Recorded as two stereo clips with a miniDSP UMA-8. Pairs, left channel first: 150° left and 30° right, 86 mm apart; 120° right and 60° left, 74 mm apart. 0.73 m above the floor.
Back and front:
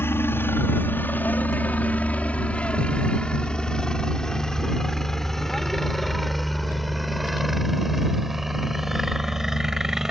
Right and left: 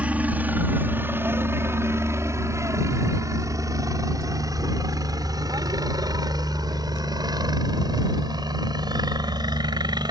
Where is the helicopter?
115° left; by 10.1 s 55° left.